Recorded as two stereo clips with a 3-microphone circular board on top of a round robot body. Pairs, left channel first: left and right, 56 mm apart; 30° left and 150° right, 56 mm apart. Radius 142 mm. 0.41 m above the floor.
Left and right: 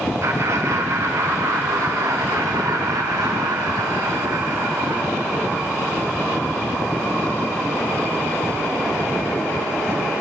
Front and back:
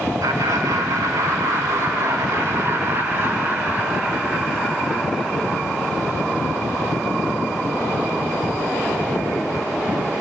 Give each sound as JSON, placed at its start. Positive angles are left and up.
{"t": 0.2, "sound": "laughter", "azimuth_deg": -125, "distance_m": 5.0}